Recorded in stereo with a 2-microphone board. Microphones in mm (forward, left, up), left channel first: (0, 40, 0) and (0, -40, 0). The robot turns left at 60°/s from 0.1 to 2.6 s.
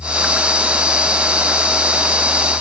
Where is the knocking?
I don't hear knocking.